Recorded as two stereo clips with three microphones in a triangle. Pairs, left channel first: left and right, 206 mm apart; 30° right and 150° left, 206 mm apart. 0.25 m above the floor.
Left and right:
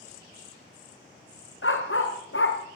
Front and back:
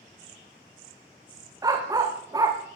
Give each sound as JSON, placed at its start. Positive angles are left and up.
{"t": 1.6, "sound": "a dog barking", "azimuth_deg": 75, "distance_m": 5.0}